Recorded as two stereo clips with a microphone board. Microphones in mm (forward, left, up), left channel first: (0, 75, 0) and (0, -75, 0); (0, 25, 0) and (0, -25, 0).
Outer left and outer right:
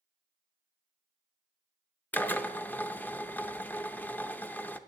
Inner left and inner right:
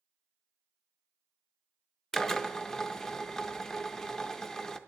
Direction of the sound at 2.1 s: 10° left (ahead or behind).